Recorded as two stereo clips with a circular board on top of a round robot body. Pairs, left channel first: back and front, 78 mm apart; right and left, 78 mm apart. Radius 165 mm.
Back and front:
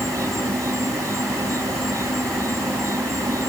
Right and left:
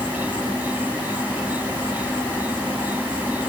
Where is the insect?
30° left.